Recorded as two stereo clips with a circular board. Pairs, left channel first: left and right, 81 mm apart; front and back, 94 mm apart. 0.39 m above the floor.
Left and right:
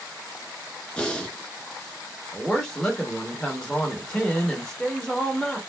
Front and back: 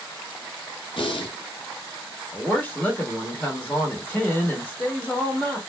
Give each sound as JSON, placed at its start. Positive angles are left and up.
{"t": 1.0, "sound": "breathing", "azimuth_deg": 15, "distance_m": 0.8}
{"t": 2.3, "sound": "a woman speaking", "azimuth_deg": 20, "distance_m": 0.9}